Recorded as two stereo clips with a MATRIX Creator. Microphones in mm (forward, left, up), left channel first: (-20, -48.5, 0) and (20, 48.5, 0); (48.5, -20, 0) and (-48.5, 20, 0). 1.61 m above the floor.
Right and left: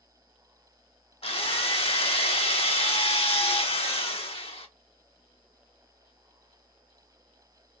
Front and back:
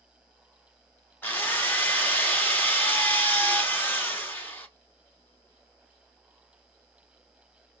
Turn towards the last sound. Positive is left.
turn(degrees=-90)